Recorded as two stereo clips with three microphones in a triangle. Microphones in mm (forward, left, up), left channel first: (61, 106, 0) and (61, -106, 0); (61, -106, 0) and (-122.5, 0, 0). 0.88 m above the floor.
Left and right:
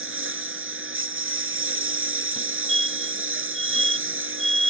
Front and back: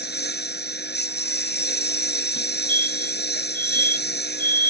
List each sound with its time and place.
0.0 s a lawn mower: 70° right
2.4 s a fire alarm: straight ahead